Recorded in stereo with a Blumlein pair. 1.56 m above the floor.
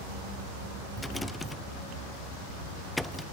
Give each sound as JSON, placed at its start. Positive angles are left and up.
{"t": 1.0, "sound": "a rattle", "azimuth_deg": 5, "distance_m": 0.7}